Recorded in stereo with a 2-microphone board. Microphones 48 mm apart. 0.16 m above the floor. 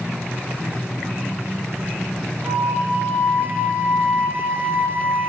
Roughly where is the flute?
Right.